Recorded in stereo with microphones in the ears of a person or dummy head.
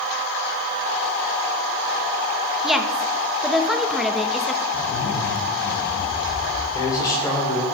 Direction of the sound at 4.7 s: 80° left.